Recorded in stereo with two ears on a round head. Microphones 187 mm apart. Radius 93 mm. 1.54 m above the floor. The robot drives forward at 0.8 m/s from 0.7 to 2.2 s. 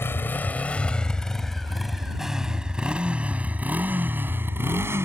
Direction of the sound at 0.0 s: 10° left (ahead or behind).